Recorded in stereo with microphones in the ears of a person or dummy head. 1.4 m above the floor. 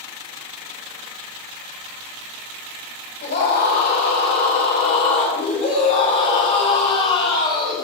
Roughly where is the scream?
Left.